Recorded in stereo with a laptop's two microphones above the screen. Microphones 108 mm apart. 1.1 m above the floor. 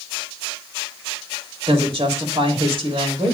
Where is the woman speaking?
60° right (ahead or behind), 2.5 m.